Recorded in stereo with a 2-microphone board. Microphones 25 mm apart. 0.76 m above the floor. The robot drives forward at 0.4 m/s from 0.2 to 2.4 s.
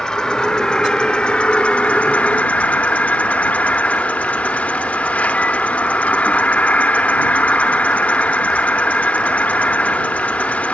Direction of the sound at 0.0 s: 30° left (ahead or behind).